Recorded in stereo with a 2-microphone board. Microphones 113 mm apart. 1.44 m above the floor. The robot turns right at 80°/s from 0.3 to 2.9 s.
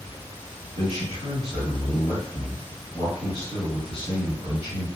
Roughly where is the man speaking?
Behind right.